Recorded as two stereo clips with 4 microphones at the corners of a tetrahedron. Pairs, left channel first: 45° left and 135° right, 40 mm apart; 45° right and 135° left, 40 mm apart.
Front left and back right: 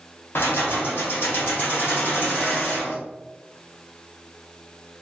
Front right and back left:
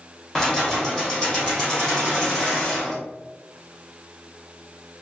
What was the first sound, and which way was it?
Keys jangling, 30° left.